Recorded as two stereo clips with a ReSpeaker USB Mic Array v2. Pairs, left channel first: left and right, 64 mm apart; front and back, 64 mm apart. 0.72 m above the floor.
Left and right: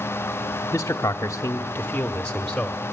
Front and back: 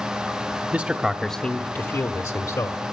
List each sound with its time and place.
0.7 s a man speaking: 125° left, 1.1 m; by 2.8 s 5° left, 1.9 m